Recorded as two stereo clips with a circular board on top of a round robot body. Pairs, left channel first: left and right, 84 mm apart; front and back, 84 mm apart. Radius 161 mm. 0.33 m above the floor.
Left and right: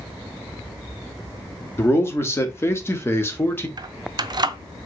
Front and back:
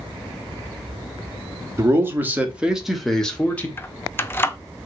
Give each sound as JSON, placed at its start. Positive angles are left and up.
{"t": 1.8, "sound": "a man speaking", "azimuth_deg": 140, "distance_m": 1.6}
{"t": 3.8, "sound": "keys jangling", "azimuth_deg": -60, "distance_m": 0.7}